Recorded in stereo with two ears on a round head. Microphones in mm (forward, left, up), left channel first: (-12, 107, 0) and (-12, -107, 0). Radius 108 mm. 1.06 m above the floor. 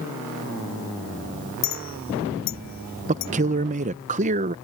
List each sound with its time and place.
1.6 s a clink: 75° left (ahead or behind)
3.1 s a man speaking: 30° right (ahead or behind)